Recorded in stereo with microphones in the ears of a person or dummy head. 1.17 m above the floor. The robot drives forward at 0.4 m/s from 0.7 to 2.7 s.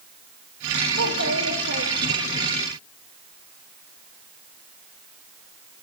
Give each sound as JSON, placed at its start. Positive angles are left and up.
{"t": 0.9, "sound": "a child speaking", "side_deg": -75, "distance_m": 0.9}